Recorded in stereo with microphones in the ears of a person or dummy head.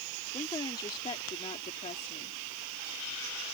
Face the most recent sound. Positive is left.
turn(degrees=40)  # may be behind; listen again after turning